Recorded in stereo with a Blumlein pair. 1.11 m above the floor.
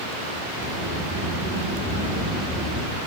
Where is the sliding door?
5° left, 7.5 m.